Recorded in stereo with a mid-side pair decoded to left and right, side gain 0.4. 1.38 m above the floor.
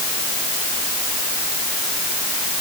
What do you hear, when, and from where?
Only background noise.